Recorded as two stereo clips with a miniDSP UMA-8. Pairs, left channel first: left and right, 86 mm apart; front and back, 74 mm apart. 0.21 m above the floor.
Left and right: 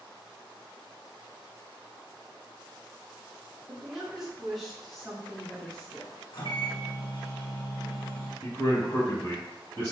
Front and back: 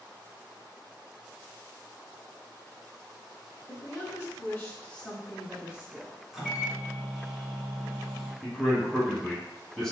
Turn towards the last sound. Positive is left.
turn(degrees=75)